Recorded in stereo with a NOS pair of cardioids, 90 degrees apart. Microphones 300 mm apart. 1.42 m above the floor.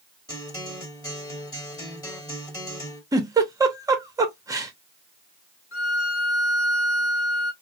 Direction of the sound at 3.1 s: 10° right.